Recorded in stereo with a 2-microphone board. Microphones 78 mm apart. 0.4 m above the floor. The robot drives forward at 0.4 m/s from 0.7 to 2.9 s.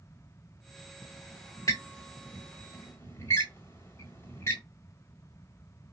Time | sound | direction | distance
1.0 | a squeak | 55° left (ahead or behind) | 1.3 m